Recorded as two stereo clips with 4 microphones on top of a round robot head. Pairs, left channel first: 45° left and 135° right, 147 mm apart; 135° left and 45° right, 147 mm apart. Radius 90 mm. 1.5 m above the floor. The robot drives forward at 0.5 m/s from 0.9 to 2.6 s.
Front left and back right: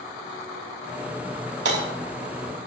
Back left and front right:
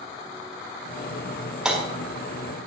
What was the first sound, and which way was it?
Hammering, 130° right.